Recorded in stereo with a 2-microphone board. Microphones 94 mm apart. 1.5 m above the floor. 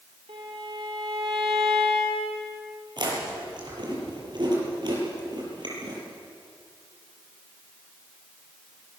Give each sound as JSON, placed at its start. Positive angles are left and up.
{"t": 0.3, "sound": "a violin", "side_deg": -75, "distance_m": 3.5}
{"t": 3.0, "sound": "chewing", "side_deg": -50, "distance_m": 7.5}